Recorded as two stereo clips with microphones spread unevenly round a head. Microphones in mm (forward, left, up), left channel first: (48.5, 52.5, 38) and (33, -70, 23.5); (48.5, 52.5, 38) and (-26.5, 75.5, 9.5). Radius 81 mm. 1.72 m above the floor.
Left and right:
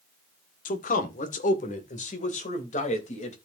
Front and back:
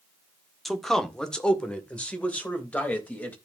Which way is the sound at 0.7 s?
70° left.